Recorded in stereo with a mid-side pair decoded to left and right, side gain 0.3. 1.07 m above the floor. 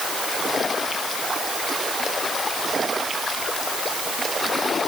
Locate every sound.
Only background noise.